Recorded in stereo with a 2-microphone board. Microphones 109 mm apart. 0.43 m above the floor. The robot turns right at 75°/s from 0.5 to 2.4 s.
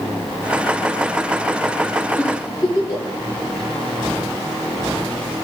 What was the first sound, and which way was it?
A giggle, 15° left (ahead or behind).